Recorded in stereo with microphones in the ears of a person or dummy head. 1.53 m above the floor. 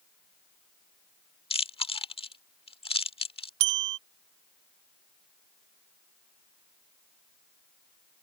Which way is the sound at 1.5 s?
25° left (ahead or behind).